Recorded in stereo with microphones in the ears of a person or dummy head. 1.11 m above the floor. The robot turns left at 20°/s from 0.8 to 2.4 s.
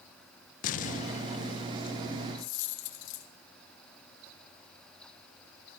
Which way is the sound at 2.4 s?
75° left (ahead or behind).